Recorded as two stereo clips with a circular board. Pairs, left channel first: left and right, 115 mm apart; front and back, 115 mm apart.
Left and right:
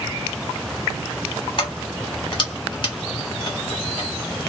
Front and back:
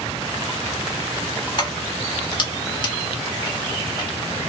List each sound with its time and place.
1.6 s keys jangling: 50° left, 1.2 m